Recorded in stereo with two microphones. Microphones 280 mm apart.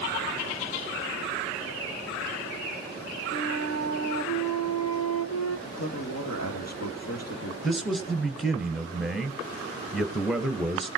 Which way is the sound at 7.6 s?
Centre (ahead or behind).